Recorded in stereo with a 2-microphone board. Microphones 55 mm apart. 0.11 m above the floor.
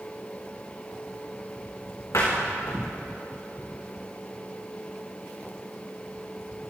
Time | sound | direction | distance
2.1 | a door slam | 75° left (ahead or behind) | 7 m